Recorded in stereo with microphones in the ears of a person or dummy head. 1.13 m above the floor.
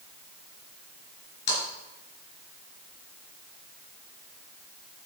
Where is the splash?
65° left (ahead or behind), 4.5 m.